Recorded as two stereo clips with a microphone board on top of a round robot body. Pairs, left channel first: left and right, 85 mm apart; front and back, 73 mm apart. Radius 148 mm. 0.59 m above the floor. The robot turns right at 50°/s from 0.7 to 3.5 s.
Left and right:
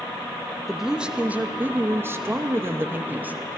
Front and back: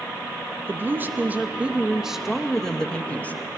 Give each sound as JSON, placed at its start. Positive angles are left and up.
{"t": 0.7, "sound": "a woman speaking", "azimuth_deg": -175, "distance_m": 0.9}